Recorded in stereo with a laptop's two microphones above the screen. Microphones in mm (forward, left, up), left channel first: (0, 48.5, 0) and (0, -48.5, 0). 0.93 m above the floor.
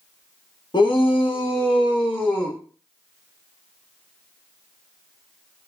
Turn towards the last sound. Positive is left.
turn(degrees=55)  # may be behind; listen again after turning